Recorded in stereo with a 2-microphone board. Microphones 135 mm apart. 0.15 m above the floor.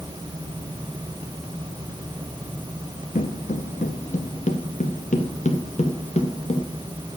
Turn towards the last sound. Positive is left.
turn(degrees=55)  # may be behind; listen again after turning